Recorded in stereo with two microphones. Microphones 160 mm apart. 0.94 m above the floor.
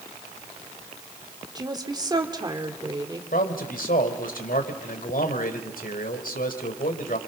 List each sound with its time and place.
1.6 s a woman speaking: 25° right (ahead or behind), 3 m
3.3 s a man speaking: 70° left (ahead or behind), 4 m